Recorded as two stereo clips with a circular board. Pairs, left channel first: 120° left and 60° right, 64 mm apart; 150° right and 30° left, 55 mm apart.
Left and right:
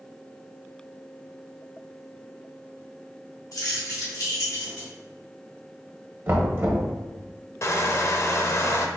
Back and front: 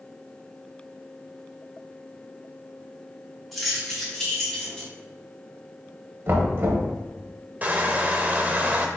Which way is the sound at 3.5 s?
120° left.